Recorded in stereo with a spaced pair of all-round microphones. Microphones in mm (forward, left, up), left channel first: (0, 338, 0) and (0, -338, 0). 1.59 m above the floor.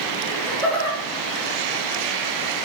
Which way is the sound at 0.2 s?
65° left (ahead or behind).